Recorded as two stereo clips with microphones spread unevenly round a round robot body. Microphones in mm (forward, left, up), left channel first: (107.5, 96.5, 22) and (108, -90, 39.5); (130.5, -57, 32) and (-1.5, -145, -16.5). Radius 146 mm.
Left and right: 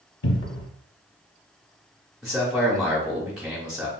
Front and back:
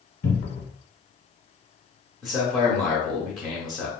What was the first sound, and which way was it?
A cupboard door, 85° left.